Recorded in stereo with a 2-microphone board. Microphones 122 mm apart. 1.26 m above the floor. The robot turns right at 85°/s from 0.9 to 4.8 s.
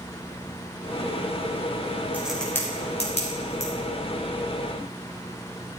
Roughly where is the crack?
Centre.